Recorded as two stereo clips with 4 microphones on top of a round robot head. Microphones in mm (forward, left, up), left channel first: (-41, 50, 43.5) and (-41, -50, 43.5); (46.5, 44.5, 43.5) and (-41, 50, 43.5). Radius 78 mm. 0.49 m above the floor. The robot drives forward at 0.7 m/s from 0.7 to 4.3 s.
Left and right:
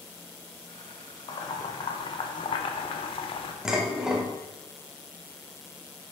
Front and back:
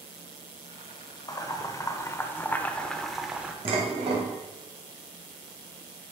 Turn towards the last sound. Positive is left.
turn(degrees=-175)